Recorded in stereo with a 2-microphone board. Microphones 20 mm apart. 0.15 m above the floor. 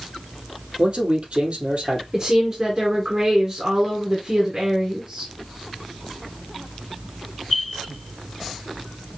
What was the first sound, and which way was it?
A man speaking, 65° right (ahead or behind).